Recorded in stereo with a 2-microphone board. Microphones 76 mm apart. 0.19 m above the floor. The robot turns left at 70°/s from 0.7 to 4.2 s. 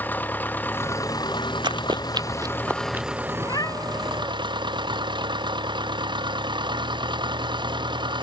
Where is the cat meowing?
65° left; by 4.3 s 10° left.